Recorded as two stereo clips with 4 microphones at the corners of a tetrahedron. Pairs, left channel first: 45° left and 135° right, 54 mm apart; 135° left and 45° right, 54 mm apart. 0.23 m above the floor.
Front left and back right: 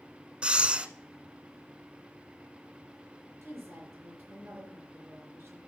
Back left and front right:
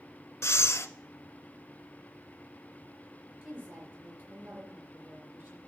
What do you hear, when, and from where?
0.4 s breathing: 155° left, 0.7 m
3.4 s a woman speaking: 95° right, 4 m